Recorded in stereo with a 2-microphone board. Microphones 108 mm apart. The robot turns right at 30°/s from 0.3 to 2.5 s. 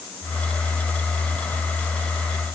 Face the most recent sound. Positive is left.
No sound to turn to.